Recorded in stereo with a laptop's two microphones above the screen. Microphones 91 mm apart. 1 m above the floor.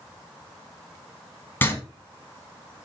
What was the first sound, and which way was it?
Writing, 25° left (ahead or behind).